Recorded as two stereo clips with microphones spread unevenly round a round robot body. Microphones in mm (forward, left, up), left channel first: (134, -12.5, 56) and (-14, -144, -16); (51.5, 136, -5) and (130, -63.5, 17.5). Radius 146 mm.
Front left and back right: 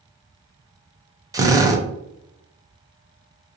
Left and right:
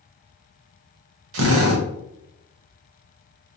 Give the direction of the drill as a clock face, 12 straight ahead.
3 o'clock.